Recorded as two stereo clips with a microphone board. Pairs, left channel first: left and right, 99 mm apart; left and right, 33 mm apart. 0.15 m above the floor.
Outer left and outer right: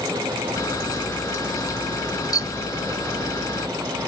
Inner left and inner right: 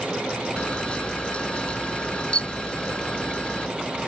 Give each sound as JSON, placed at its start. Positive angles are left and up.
{"t": 0.6, "sound": "a camera shutter", "side_deg": 35}